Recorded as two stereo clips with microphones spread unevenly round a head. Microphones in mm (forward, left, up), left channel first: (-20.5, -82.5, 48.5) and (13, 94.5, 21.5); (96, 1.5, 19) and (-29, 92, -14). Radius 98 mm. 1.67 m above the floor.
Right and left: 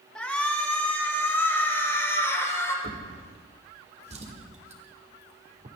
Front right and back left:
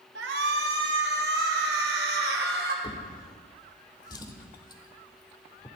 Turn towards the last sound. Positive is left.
turn(degrees=25)